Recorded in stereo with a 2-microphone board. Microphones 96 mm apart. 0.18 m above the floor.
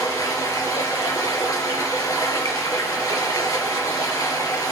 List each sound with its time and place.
0.0 s running water: 40° left (ahead or behind), 2.5 m